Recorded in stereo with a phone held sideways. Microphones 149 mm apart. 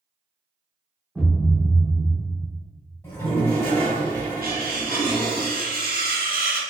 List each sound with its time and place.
1.1 s a thud: 10° right (ahead or behind), 1.0 m
3.0 s a toilet flushing: 20° left (ahead or behind), 1.6 m
4.4 s cutlery clinking: 80° right, 1.0 m